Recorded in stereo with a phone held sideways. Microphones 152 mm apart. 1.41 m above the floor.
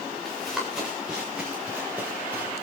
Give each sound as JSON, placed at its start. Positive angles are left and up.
{"t": 0.2, "sound": "running footsteps", "side_deg": 0, "distance_m": 7.5}